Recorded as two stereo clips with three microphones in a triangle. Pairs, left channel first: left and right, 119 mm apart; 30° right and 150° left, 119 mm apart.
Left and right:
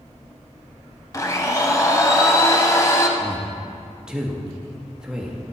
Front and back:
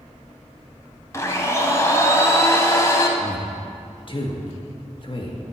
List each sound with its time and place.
1.1 s a blender: 30° left, 0.9 m
3.2 s a man speaking: 10° right, 1.2 m